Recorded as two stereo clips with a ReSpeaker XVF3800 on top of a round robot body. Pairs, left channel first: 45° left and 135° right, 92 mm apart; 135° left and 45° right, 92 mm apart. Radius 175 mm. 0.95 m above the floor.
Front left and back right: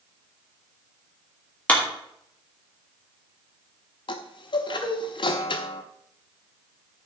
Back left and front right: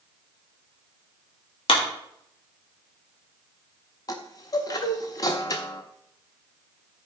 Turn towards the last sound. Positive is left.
turn(degrees=85)